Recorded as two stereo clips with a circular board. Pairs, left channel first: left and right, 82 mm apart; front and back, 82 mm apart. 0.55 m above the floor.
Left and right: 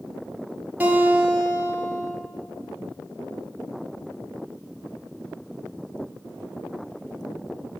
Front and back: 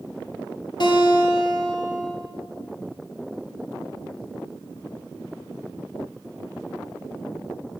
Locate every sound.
0.8 s a guitar: 20° right, 1.8 m